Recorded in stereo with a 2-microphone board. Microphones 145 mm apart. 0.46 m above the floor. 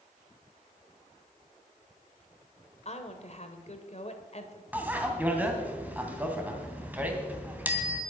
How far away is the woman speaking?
About 1.9 m.